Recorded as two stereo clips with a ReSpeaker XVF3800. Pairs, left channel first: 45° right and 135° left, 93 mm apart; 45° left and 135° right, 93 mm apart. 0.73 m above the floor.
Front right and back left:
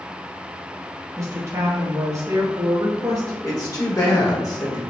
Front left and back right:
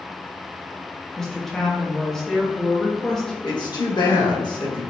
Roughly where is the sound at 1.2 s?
Behind left.